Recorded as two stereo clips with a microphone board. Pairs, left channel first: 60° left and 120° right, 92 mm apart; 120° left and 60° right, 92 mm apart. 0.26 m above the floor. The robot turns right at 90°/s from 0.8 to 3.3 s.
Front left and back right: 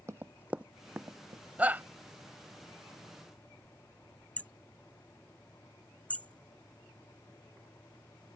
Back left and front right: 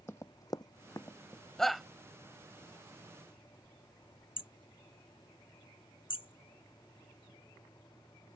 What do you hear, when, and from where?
0.1 s running footsteps: 175° right; by 1.4 s 150° right
1.6 s a shout: 160° right; by 1.9 s 140° right
4.4 s hammering: 135° left